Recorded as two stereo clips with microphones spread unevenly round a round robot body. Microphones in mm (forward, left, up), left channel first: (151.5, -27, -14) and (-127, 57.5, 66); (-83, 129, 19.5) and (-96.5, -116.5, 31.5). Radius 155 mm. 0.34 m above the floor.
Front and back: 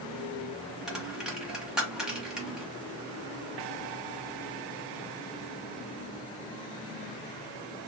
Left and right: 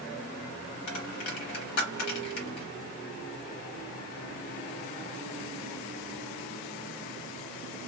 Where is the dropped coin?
70° left, 0.8 m.